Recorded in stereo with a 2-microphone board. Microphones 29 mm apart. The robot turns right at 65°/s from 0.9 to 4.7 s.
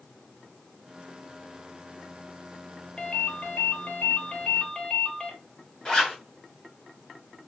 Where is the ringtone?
35° left, 1.1 m; by 5.3 s 150° left, 1.1 m.